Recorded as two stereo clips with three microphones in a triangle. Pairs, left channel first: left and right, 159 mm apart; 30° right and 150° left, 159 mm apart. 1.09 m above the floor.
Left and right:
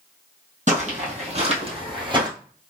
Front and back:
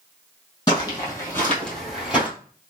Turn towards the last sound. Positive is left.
turn(degrees=-135)